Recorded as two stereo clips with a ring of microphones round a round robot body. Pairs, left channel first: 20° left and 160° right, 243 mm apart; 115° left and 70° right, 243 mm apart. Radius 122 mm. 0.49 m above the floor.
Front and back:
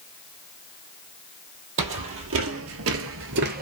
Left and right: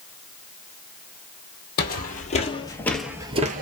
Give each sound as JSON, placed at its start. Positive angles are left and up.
{"t": 1.8, "sound": "footsteps", "azimuth_deg": 165, "distance_m": 1.1}